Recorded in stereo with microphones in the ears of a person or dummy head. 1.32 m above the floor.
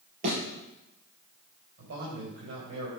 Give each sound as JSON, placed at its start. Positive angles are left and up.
{"t": 0.2, "sound": "a thud", "side_deg": -55, "distance_m": 4.5}
{"t": 1.8, "sound": "a man speaking", "side_deg": -85, "distance_m": 5.5}